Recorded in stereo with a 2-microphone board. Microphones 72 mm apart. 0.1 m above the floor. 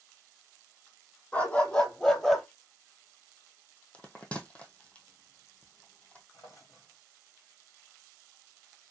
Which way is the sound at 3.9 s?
20° left (ahead or behind).